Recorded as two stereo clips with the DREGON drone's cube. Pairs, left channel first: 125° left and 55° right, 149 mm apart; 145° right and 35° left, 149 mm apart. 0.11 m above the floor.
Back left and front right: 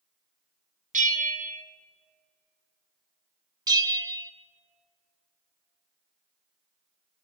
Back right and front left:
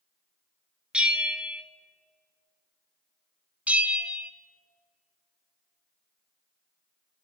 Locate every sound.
0.9 s a bell: 50° right, 0.9 m
3.7 s a bell: 35° right, 0.6 m